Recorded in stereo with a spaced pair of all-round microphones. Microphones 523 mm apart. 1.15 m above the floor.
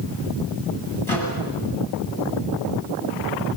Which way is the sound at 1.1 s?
65° right (ahead or behind).